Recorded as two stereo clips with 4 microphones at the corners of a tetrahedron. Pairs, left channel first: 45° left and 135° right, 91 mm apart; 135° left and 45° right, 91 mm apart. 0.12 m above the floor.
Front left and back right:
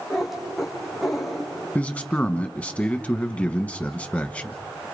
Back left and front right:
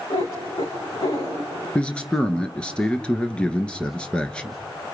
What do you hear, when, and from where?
0.1 s a cat meowing: 135° left, 5.5 m
1.8 s a man speaking: 85° left, 1.1 m